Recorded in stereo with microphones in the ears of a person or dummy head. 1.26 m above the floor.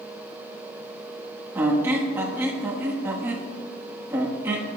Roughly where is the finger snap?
I don't hear a finger snap.